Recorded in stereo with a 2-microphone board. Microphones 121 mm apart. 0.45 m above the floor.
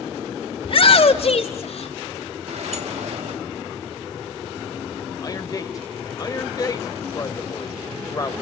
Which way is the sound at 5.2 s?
30° left (ahead or behind).